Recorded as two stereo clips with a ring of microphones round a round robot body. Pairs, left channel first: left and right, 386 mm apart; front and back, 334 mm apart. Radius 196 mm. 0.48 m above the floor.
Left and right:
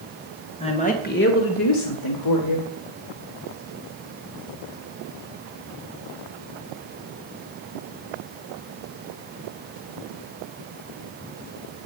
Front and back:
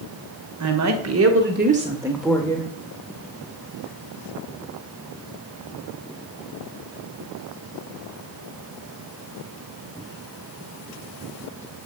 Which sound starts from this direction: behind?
A woman speaking, at 0.6 s.